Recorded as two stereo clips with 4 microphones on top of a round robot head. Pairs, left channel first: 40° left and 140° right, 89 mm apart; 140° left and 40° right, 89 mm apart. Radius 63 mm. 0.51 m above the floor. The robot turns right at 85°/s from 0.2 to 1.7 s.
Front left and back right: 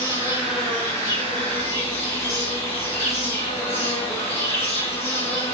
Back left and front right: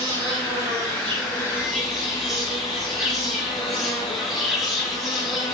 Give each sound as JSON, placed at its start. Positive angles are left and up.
{"t": 0.0, "sound": "an insect", "azimuth_deg": -80, "distance_m": 4.5}